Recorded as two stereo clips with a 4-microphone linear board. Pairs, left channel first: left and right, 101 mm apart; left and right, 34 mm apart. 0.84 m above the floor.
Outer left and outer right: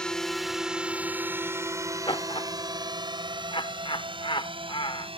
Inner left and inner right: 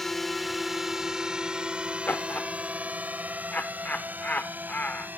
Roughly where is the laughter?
Left.